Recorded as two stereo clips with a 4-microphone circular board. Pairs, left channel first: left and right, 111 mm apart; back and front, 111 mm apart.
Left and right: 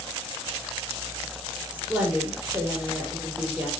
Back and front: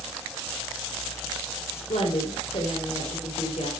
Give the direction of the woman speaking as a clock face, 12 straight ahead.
6 o'clock.